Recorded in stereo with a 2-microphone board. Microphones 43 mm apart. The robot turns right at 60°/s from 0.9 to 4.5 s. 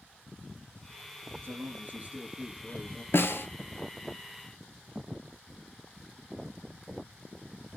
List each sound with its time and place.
1.4 s a man speaking: 85° right, 2.5 m; by 3.0 s 15° left, 2.5 m
3.1 s a snare drum: 65° left (ahead or behind), 0.8 m; by 3.5 s 55° left (ahead or behind), 0.8 m